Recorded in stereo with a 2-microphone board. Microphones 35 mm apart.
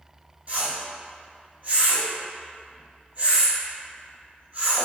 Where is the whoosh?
35° right (ahead or behind), 1.1 m.